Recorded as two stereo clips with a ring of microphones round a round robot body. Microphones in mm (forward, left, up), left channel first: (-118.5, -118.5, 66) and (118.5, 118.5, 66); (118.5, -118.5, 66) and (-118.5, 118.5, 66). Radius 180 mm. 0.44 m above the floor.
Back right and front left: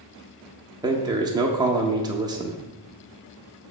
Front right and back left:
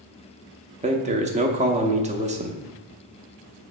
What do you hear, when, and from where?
0.8 s a man speaking: 105° left, 0.8 m